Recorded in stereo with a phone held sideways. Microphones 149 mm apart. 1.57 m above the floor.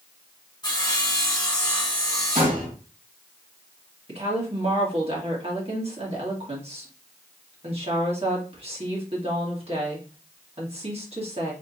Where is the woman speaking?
45° right (ahead or behind), 2 m.